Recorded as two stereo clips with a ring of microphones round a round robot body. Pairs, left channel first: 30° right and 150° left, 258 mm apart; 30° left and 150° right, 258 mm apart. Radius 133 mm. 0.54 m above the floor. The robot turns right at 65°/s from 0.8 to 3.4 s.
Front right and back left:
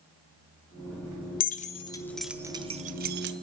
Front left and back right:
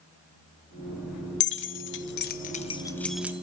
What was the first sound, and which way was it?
Keys jangling, 5° left.